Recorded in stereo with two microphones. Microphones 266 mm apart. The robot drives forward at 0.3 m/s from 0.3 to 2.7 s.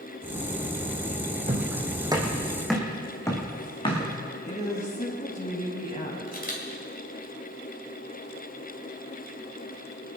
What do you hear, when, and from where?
1.5 s footsteps: 30° right (ahead or behind), 2.5 m; by 4.1 s 20° left (ahead or behind), 4 m
4.4 s a woman speaking: 30° left (ahead or behind), 4 m
6.3 s a camera shutter: 35° left (ahead or behind), 3 m